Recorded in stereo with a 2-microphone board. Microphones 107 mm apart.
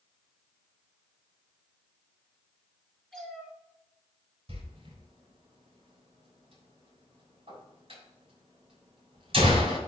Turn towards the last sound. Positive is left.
turn(degrees=-55)  # may be behind; listen again after turning